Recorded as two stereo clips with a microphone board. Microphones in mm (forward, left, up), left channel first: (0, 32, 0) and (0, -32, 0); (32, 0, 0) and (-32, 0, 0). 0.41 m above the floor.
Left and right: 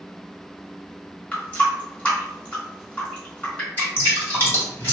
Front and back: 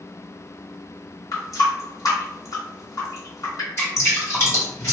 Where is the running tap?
20° left, 1.1 m.